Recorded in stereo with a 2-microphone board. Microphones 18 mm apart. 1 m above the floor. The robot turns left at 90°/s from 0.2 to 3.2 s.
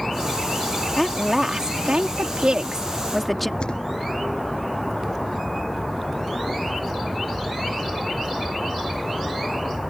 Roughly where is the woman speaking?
Ahead.